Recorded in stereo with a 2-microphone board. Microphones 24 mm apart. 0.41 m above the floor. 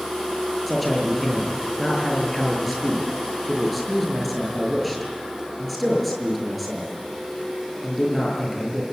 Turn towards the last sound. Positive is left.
turn(degrees=5)  # may be behind; listen again after turning